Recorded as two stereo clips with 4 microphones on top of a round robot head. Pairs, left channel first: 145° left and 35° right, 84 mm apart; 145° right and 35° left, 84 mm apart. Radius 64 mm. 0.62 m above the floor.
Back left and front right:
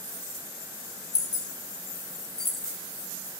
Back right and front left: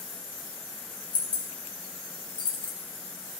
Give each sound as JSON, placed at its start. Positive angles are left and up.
{"t": 1.1, "sound": "keys jangling", "azimuth_deg": -170, "distance_m": 1.9}